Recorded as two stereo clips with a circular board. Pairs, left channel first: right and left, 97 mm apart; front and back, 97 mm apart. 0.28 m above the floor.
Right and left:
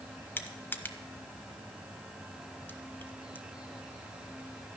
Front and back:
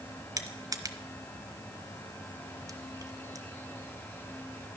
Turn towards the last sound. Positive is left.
turn(degrees=-150)